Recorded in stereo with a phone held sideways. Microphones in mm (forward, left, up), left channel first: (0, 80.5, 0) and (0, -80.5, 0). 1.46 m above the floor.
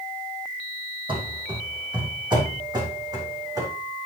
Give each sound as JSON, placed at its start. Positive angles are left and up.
{"t": 1.1, "sound": "running footsteps", "side_deg": -30, "distance_m": 2.5}